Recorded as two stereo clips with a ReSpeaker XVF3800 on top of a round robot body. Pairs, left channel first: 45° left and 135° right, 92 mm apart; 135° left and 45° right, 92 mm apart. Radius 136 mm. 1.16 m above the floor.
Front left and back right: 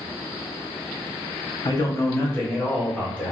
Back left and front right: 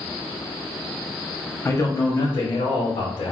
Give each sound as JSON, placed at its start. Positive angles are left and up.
{"t": 1.6, "sound": "a man speaking", "azimuth_deg": 80, "distance_m": 1.0}